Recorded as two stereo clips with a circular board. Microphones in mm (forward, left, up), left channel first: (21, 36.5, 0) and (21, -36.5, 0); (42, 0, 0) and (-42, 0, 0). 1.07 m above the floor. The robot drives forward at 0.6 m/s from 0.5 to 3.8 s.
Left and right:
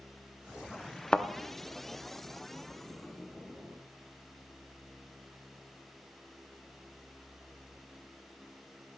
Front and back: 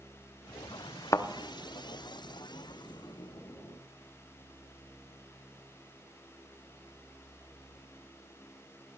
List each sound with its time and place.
1.1 s a thud: 15° left, 0.6 m; by 1.3 s 20° left, 0.5 m